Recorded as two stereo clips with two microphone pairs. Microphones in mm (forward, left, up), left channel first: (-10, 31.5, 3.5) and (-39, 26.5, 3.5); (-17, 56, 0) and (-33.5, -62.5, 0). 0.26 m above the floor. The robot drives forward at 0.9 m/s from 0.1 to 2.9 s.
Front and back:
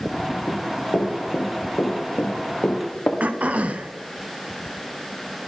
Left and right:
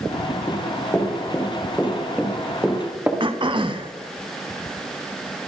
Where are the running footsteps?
10° left, 3.5 m; by 3.1 s 25° right, 2.5 m.